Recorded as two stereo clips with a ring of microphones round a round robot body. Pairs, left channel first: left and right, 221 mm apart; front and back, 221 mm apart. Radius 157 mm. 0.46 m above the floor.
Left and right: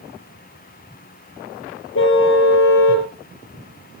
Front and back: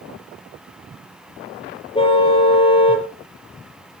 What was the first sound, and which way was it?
A car horn, 65° left.